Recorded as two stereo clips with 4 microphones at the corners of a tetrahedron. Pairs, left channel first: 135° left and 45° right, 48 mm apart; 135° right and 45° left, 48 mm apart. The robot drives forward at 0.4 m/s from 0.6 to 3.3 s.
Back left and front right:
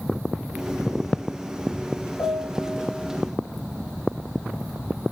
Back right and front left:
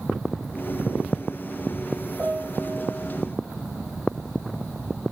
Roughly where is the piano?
Behind left.